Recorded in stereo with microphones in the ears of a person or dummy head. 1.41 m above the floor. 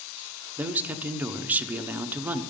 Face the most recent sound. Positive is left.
turn(degrees=-15)  # may be behind; listen again after turning